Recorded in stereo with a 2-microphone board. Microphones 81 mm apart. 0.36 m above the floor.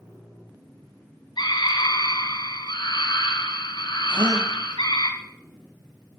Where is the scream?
70° left (ahead or behind), 4 m.